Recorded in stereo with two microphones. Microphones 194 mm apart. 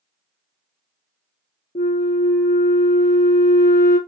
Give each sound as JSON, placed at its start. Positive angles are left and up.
{"t": 1.8, "sound": "a flute", "side_deg": 50, "distance_m": 0.9}